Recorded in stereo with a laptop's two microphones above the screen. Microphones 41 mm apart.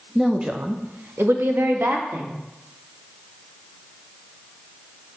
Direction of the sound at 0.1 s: 5° right (ahead or behind).